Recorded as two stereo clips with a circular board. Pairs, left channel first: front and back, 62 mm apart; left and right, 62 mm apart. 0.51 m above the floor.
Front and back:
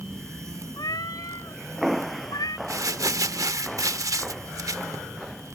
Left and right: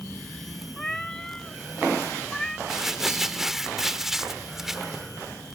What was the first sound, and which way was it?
A cat meowing, 5° left.